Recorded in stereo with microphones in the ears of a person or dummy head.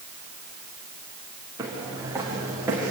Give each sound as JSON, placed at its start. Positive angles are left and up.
{"t": 1.6, "sound": "footsteps", "side_deg": -20, "distance_m": 8.0}